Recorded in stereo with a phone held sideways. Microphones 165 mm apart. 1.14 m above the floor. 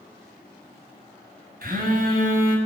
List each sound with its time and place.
1.6 s a phone buzzing: 65° right (ahead or behind), 2 m